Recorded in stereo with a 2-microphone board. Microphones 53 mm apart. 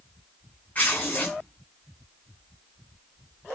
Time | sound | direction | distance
0.8 | tearing paper | 35° left (ahead or behind) | 5.5 m